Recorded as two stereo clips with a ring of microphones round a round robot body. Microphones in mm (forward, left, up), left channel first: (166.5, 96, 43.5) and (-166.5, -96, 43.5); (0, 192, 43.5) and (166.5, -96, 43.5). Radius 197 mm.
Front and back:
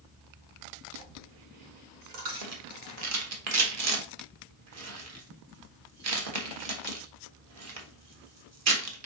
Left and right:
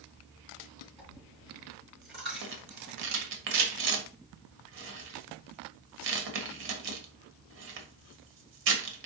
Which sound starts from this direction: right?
A rattle, at 2.4 s.